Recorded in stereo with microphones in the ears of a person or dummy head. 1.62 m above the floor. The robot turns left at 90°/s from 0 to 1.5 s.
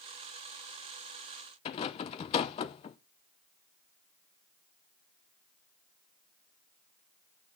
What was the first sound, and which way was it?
A rattle, 35° left (ahead or behind).